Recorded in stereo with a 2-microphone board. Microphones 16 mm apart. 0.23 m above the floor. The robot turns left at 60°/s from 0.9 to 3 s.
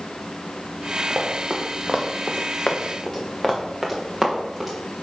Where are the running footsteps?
50° right (ahead or behind), 2 m; by 4.7 s 10° right (ahead or behind), 3 m.